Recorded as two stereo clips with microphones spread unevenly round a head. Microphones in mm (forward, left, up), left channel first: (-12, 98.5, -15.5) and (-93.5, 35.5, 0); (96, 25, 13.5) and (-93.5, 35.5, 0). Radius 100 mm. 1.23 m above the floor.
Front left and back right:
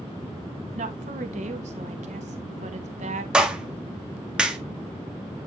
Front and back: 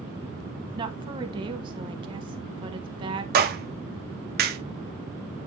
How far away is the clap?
About 1.7 m.